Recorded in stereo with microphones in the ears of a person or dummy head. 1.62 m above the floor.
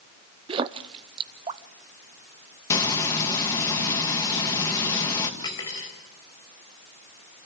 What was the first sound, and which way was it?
A splash, 30° right (ahead or behind).